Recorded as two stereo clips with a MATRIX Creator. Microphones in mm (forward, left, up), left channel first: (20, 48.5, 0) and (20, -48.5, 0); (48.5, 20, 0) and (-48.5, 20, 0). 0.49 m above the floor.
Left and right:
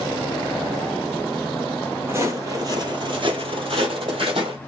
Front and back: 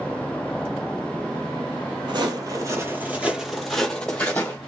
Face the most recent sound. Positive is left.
turn(degrees=-65)